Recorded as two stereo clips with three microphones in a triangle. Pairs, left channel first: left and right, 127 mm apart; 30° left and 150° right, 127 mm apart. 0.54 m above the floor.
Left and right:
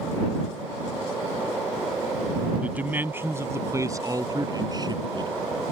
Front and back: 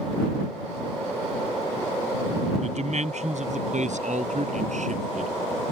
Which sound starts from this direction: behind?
A man speaking, at 2.6 s.